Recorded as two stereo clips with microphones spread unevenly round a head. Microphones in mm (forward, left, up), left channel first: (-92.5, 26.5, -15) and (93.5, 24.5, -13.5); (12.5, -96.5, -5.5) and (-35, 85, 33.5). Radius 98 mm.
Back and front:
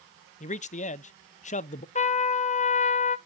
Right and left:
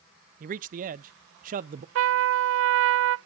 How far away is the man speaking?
About 0.5 m.